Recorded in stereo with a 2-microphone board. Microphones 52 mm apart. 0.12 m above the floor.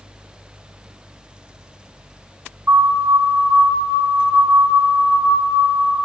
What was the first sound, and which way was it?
A siren, 35° right (ahead or behind).